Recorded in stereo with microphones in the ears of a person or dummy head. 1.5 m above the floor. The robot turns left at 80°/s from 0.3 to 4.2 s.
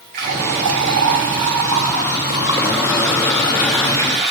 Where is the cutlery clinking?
I don't hear cutlery clinking.